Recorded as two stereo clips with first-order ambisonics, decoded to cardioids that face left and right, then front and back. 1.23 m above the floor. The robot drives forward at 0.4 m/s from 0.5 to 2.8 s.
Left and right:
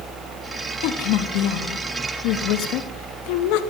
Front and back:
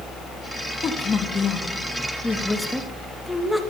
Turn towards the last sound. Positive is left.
turn(degrees=90)